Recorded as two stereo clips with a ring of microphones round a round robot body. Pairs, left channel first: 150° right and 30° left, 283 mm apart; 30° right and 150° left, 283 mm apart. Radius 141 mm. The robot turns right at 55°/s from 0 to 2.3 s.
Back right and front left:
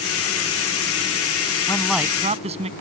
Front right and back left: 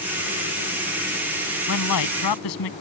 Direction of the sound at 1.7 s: 75° right.